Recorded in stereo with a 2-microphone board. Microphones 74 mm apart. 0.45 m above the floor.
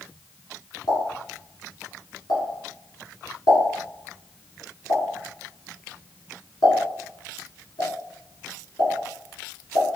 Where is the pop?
70° left (ahead or behind), 1.5 m.